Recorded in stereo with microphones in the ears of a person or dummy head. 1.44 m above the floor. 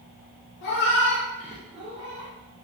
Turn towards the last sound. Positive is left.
turn(degrees=-50)  # may be behind; listen again after turning